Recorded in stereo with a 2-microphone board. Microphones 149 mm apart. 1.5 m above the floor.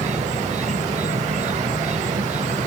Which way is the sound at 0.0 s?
50° right (ahead or behind).